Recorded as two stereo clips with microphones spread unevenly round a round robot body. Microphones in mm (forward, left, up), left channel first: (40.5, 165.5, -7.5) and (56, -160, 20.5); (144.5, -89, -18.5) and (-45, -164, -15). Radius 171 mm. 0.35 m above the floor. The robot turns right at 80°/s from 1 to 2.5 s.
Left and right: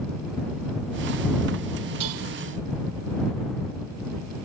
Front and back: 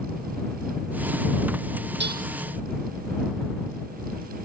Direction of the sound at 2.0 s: 130° right.